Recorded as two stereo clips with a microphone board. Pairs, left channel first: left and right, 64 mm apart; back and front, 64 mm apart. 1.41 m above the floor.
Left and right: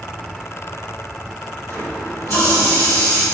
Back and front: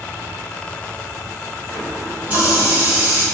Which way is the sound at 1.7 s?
60° left.